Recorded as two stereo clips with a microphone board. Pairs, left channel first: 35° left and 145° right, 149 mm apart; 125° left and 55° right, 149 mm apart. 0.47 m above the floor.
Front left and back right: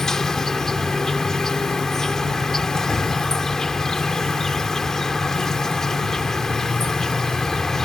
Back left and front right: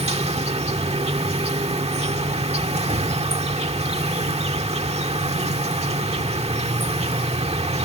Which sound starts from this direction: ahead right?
An insect, at 0.0 s.